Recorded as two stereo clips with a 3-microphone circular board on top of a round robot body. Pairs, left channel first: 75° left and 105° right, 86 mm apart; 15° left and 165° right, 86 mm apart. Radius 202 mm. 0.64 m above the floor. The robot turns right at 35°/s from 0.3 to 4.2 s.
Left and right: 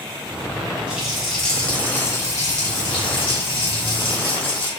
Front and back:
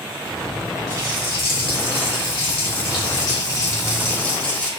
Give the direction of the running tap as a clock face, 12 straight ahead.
1 o'clock.